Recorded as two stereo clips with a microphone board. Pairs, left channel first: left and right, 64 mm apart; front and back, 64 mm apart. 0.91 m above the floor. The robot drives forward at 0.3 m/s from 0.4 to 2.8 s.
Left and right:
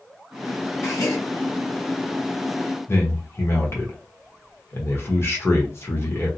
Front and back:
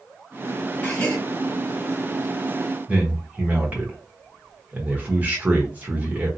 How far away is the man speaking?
About 1.1 m.